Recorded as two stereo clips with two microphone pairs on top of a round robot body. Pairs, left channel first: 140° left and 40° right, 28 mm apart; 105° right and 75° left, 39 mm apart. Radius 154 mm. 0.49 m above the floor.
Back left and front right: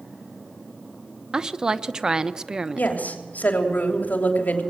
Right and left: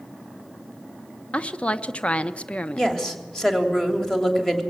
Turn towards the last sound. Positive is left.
turn(degrees=175)